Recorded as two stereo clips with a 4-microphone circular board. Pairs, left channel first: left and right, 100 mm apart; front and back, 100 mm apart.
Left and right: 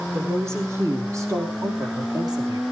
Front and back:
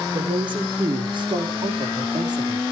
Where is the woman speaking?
155° right, 4.5 m; by 2.6 s 135° right, 5 m.